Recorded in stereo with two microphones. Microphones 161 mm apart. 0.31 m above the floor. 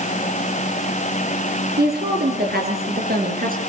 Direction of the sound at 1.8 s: 80° right.